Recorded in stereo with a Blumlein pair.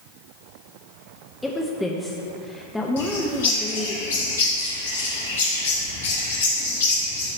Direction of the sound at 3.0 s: 60° left.